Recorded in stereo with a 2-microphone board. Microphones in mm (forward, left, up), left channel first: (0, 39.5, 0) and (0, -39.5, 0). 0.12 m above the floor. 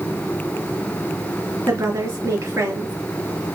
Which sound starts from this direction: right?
A woman speaking, at 1.7 s.